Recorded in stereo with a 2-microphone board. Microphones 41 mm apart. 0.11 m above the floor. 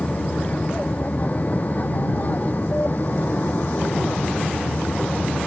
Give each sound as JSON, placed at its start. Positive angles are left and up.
{"t": 0.0, "sound": "an aircraft", "side_deg": 35}